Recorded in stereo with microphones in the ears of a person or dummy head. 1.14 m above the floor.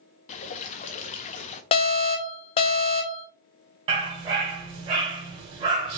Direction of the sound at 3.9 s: 35° right (ahead or behind).